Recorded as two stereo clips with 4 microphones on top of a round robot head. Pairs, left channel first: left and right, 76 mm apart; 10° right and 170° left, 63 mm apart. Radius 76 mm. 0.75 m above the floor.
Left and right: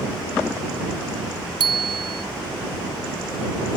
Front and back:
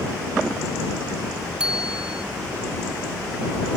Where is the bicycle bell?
110° right.